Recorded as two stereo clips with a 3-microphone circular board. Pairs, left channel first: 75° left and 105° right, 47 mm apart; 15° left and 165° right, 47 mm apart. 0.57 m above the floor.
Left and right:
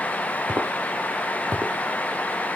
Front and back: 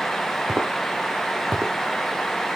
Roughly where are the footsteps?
Behind right.